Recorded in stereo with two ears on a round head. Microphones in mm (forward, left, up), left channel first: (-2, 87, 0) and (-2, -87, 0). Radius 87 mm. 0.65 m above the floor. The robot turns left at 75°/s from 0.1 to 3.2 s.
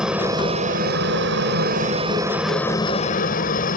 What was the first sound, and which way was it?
A helicopter, 5° right (ahead or behind).